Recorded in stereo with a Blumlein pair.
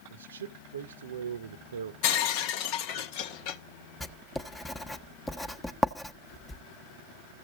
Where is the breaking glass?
45° left, 0.9 m.